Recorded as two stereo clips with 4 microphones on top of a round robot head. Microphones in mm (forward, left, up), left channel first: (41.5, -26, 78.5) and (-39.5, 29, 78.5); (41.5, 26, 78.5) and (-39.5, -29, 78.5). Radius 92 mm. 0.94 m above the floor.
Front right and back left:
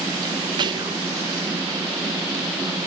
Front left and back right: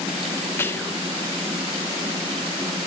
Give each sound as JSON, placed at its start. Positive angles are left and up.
{"t": 0.6, "sound": "whispering", "azimuth_deg": 100, "distance_m": 0.6}